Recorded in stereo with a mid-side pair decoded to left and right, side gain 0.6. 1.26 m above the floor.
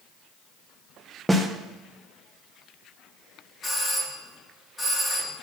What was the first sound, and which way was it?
A snare drum, 10° right.